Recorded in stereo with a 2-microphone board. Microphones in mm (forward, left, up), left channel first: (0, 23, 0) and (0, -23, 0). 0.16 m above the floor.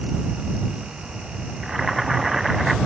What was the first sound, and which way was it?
Boiling, 5° right (ahead or behind).